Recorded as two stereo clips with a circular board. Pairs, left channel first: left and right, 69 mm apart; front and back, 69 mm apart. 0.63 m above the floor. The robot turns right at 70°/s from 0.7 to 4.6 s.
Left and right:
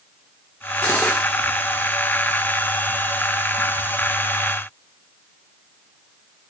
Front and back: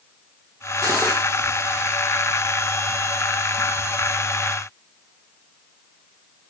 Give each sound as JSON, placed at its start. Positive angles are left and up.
{"t": 0.8, "sound": "cutlery clinking", "azimuth_deg": 150, "distance_m": 0.7}